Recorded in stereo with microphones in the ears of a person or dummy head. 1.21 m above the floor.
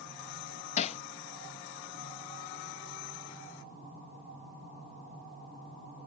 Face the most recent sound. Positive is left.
turn(degrees=40)  # may be behind; listen again after turning